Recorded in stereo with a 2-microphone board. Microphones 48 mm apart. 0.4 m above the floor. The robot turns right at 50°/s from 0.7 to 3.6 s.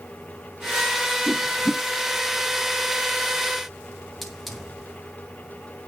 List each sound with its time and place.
1.3 s a whoosh: 25° left (ahead or behind), 0.8 m; by 1.8 s 55° left (ahead or behind), 0.8 m
4.2 s a hiss: 5° right (ahead or behind), 3.5 m